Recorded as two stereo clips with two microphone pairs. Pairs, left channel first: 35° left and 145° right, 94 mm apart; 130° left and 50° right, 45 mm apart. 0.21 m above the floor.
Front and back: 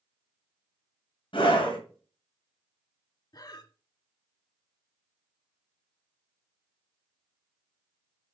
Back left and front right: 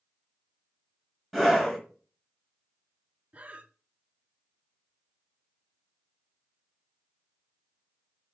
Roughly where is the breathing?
Ahead.